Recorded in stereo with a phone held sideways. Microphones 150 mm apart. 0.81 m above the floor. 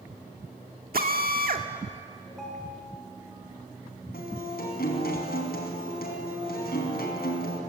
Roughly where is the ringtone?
Centre.